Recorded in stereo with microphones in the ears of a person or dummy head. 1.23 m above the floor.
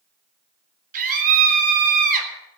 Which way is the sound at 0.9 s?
45° right (ahead or behind).